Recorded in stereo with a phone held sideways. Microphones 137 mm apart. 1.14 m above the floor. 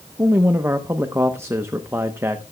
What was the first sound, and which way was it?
A man speaking, 20° right (ahead or behind).